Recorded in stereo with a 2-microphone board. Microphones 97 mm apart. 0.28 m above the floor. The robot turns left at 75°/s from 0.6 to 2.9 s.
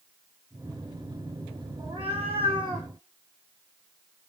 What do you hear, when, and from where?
1.8 s a cat meowing: 60° right, 1.1 m; by 2.9 s 140° right, 1.1 m